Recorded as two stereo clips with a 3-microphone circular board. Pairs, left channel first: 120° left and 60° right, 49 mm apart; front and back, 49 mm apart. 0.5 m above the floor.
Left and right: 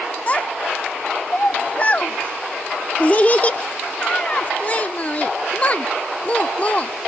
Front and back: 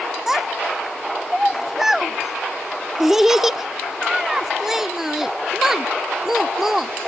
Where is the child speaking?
105° left.